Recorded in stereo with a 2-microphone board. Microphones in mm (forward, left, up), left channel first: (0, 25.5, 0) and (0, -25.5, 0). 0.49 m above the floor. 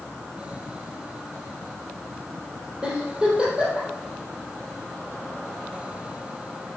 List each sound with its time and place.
2.8 s a giggle: 20° right (ahead or behind), 4 m